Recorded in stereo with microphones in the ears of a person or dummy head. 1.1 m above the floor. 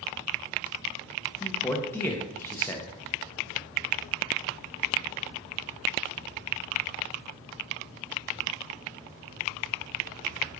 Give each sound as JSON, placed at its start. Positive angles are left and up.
{"t": 1.4, "sound": "a man speaking", "side_deg": 15, "distance_m": 0.6}